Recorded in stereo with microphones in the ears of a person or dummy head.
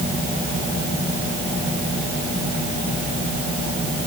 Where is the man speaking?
I don't hear a man speaking.